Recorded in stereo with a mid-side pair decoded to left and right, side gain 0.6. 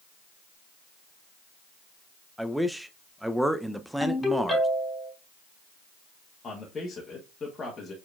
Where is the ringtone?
15° left, 3 m.